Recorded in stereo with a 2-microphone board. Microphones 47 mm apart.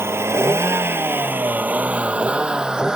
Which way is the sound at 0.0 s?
65° right (ahead or behind).